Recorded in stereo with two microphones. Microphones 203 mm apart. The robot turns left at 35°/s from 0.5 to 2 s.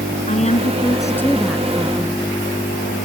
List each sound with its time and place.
0.3 s a woman speaking: 35° left; by 2.2 s 20° right